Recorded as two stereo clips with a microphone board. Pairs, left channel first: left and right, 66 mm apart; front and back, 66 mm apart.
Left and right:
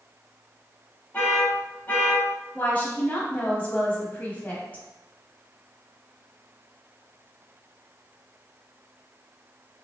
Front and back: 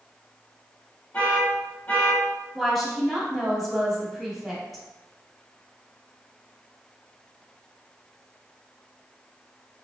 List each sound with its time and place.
1.1 s an alarm: 45° left, 1.3 m
2.5 s a woman speaking: 85° left, 1.1 m